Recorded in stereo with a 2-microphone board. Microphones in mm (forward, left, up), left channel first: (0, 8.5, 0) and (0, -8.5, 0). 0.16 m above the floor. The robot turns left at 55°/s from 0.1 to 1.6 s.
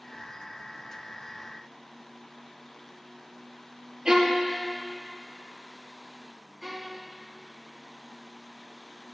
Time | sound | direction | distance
4.0 | a violin | 35° right (ahead or behind) | 2 m
6.6 | a violin | 35° right (ahead or behind) | 4.5 m